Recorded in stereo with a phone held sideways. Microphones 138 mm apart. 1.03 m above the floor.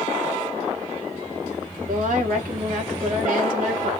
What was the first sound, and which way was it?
A woman speaking, 75° right (ahead or behind).